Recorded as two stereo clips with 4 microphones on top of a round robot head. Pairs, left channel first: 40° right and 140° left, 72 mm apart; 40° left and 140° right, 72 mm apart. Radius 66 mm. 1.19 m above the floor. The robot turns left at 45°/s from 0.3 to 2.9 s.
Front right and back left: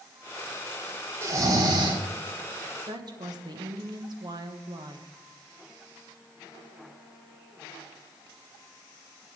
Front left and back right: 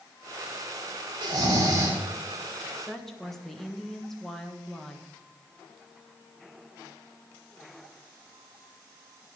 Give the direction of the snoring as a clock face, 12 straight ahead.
5 o'clock.